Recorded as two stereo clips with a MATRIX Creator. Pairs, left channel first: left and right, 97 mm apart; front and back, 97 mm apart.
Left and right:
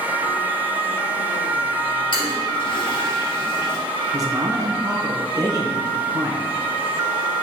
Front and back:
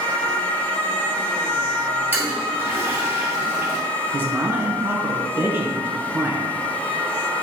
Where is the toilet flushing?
110° left, 2.5 m.